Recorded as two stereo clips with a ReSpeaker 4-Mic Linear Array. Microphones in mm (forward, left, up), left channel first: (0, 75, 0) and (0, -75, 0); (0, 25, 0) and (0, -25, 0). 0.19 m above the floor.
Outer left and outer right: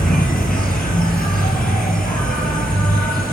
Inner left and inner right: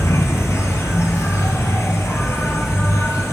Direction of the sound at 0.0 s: 80° left.